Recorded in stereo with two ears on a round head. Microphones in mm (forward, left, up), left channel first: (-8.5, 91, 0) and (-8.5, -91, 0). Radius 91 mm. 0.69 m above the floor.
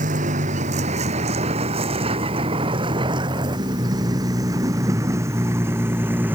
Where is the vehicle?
40° right (ahead or behind); by 6.4 s 10° right (ahead or behind).